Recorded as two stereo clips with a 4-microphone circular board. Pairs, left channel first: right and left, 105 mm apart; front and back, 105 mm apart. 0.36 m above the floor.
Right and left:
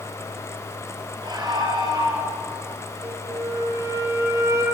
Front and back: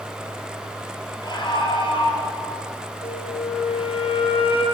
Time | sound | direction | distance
1.2 | a scream | 45° left | 6.5 m
3.0 | a flute | 30° left | 4.5 m